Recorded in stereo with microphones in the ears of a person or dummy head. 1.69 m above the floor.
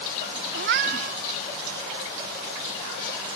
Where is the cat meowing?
45° right (ahead or behind).